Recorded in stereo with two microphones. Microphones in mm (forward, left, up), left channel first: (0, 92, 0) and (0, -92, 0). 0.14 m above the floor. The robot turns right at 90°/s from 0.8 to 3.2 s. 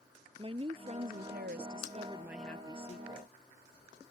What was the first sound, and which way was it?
A woman speaking, 145° right.